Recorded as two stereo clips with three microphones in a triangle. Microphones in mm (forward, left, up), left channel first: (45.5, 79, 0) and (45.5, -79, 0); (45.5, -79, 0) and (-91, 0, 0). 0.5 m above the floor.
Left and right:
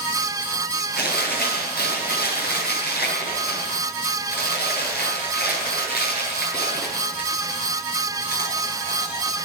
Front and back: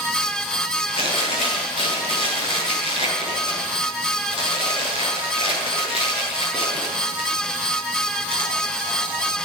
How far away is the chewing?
About 9.5 m.